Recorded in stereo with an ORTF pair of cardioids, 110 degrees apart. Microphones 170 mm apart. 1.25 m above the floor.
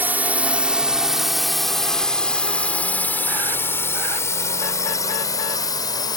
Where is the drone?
10° right; by 6.2 s 25° left.